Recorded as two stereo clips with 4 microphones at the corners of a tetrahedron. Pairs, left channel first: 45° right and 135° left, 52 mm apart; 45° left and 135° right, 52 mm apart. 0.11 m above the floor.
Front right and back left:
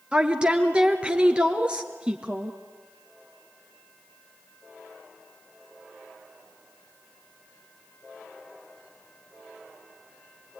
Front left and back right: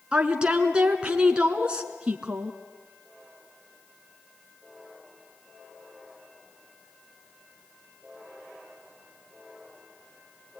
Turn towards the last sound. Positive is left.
turn(degrees=175)